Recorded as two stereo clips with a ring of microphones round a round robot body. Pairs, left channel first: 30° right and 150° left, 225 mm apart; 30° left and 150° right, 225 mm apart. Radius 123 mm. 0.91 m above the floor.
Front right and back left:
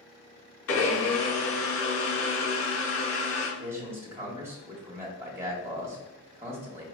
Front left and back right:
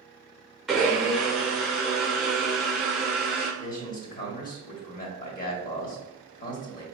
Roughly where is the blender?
Ahead right.